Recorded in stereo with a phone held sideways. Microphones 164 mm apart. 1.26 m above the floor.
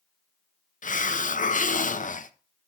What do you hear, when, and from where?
0.8 s a hiss: 50° left (ahead or behind), 0.5 m